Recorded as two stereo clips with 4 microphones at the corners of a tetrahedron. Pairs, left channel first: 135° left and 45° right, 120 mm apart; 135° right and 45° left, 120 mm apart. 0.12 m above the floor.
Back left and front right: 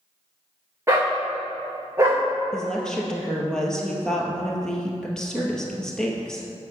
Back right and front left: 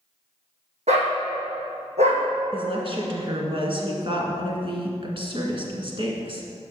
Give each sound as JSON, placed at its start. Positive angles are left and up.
{"t": 0.9, "sound": "a dog barking", "azimuth_deg": 20, "distance_m": 2.0}
{"t": 2.5, "sound": "a woman speaking", "azimuth_deg": 50, "distance_m": 1.7}